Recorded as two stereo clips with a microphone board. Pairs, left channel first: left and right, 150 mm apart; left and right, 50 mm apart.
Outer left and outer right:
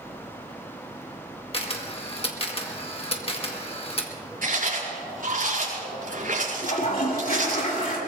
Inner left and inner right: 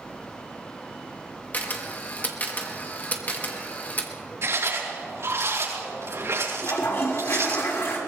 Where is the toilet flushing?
65° left (ahead or behind), 3 m.